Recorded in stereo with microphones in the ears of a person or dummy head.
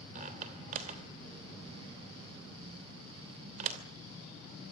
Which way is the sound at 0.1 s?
35° right (ahead or behind).